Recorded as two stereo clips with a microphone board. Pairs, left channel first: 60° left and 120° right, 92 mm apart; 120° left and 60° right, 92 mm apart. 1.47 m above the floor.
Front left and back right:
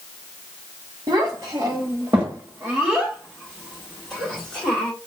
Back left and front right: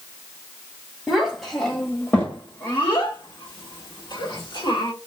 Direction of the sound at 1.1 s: 145° right.